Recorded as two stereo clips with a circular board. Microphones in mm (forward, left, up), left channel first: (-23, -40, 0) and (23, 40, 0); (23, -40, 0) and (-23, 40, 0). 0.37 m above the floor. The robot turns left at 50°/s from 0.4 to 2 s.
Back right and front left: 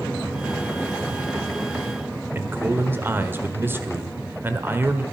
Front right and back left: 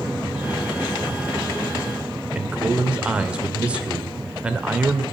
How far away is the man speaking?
About 1.4 m.